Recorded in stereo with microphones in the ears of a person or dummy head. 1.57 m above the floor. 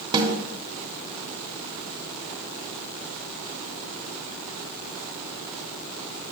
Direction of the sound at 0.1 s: 30° right (ahead or behind).